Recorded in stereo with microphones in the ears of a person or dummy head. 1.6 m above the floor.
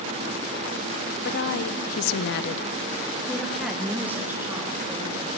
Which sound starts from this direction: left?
A woman speaking, at 1.2 s.